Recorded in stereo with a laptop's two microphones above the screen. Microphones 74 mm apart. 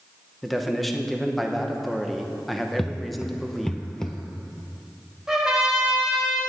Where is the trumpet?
10° right (ahead or behind), 1.9 m.